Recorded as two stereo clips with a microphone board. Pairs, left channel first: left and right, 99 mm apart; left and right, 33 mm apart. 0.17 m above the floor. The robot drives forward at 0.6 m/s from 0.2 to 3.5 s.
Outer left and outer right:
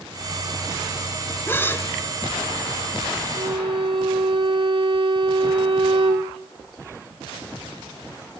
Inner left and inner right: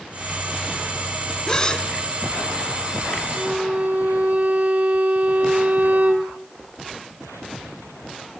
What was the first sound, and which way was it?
A gasp, 25° left (ahead or behind).